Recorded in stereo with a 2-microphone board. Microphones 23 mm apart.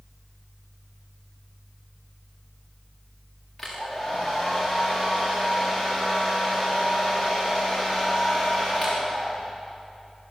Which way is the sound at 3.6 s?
Centre (ahead or behind).